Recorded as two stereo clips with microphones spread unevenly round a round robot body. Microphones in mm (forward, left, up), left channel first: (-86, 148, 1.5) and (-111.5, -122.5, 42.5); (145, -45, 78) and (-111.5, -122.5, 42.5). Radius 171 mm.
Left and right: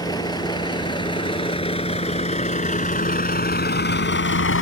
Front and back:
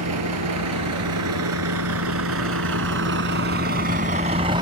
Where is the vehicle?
160° left; by 4.6 s 125° left.